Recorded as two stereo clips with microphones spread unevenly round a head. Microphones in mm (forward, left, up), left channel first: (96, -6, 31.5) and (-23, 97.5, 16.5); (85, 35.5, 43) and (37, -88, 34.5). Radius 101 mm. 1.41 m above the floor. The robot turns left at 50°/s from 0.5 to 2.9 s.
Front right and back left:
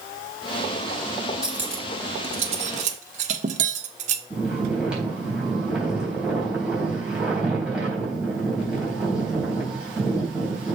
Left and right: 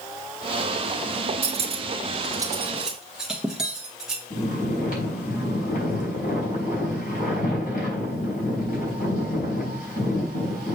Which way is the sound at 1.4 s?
130° right.